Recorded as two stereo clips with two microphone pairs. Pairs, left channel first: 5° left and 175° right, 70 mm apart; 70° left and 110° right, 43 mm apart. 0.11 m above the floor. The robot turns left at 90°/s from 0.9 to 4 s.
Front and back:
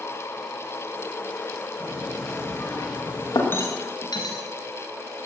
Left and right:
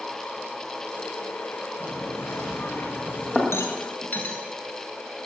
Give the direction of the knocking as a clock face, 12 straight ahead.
8 o'clock.